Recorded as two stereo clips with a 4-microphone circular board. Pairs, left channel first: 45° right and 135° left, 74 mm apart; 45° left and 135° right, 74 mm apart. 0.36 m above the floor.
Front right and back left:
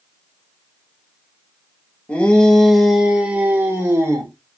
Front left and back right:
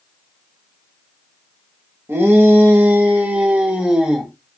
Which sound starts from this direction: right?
A shout, at 2.1 s.